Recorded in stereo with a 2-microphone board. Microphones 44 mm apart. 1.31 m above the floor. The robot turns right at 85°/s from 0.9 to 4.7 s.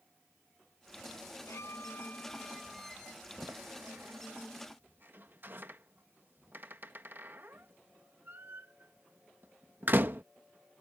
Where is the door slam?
15° right (ahead or behind); by 10.2 s 50° right (ahead or behind).